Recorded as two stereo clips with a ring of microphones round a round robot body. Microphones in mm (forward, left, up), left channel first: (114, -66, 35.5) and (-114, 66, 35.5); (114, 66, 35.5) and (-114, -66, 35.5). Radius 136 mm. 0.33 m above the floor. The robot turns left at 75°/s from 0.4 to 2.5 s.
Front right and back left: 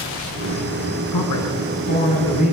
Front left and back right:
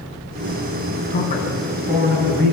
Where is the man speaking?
20° right, 5 m; by 2.5 s 125° right, 5 m.